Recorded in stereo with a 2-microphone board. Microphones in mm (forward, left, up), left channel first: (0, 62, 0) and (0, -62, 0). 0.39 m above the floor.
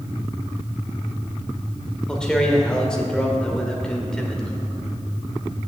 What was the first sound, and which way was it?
A man speaking, 5° left (ahead or behind).